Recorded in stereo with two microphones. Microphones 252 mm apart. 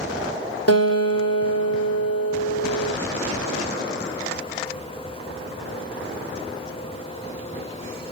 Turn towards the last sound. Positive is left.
turn(degrees=70)  # may be behind; listen again after turning